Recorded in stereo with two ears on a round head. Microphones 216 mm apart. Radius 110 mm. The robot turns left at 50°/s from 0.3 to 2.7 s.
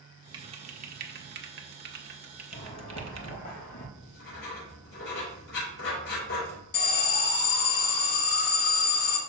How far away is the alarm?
About 2 m.